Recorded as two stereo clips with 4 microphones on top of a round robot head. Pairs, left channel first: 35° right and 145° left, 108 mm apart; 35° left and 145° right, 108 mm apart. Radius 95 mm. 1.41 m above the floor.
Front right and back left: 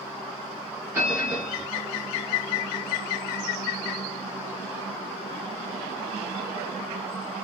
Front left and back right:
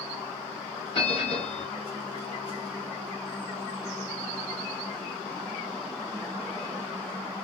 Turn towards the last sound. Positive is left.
turn(degrees=80)